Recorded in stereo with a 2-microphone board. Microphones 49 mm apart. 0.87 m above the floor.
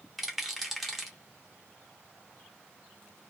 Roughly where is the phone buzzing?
No phone buzzing in this recording.